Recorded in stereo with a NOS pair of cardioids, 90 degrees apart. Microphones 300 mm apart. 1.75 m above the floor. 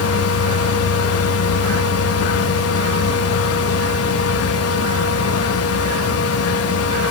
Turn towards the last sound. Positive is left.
turn(degrees=55)